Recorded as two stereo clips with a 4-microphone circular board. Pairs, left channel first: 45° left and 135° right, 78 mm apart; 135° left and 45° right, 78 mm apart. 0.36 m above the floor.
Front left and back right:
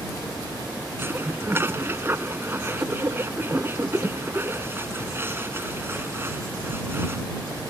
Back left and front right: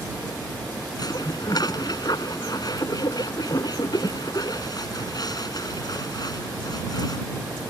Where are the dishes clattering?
165° left.